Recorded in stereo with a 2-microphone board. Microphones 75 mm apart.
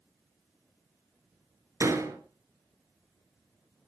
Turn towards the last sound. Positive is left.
turn(degrees=-45)  # may be behind; listen again after turning